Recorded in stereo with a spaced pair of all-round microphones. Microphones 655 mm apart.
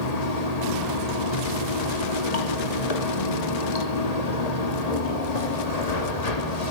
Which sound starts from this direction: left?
Running water, at 0.0 s.